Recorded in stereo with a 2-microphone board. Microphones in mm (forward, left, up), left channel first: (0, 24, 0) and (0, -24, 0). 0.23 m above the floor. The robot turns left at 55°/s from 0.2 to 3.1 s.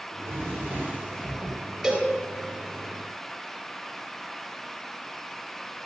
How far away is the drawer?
About 4 m.